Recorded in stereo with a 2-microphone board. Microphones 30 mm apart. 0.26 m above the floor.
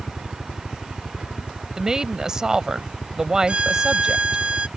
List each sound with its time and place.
0.0 s a helicopter: 55° left (ahead or behind); by 4.8 s 45° left (ahead or behind)
1.8 s a woman speaking: 20° right (ahead or behind)
3.5 s a violin: 35° right (ahead or behind)